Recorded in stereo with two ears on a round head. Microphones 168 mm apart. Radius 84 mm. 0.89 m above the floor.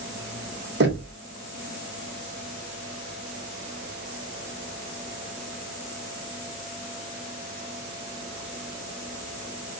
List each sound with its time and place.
0.8 s knocking: 65° right (ahead or behind), 2 m